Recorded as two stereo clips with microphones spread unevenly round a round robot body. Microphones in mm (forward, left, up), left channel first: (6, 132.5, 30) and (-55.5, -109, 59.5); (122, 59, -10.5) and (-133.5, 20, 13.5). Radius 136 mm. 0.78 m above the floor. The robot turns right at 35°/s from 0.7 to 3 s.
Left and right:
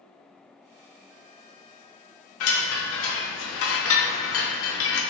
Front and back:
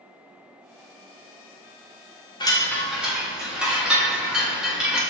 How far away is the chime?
About 0.9 m.